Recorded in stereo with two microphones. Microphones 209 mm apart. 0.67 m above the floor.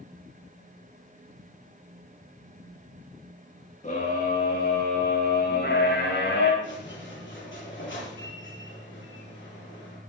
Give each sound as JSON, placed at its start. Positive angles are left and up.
{"t": 3.8, "sound": "a scream", "side_deg": 40, "distance_m": 7.5}
{"t": 6.6, "sound": "a squeak", "side_deg": 75, "distance_m": 9.0}